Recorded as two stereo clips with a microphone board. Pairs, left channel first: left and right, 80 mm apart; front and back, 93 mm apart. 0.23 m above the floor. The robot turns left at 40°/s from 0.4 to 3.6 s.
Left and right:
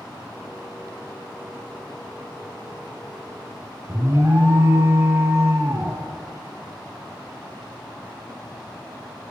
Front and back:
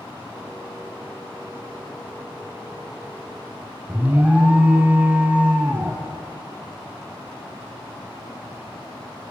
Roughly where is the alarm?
Behind right.